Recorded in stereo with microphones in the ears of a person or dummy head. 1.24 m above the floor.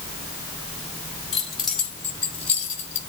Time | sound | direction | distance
1.3 | keys jangling | centre (ahead or behind) | 5 m